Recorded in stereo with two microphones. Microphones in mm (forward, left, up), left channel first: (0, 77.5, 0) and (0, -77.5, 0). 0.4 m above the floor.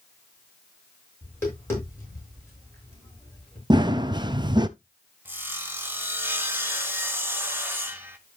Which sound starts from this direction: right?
Running footsteps, at 3.7 s.